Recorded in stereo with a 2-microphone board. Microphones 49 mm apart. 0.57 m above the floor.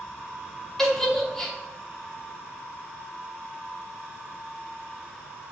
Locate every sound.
0.8 s a giggle: 10° left (ahead or behind), 1.1 m